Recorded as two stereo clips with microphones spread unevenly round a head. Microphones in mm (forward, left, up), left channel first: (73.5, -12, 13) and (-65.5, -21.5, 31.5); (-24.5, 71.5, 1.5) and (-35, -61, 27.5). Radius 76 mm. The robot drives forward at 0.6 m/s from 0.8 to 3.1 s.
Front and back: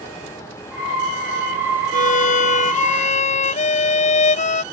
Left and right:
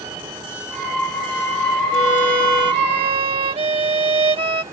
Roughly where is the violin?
Ahead right.